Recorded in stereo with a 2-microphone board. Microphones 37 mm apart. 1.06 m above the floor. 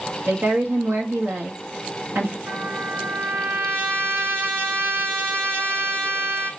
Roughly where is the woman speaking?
Right.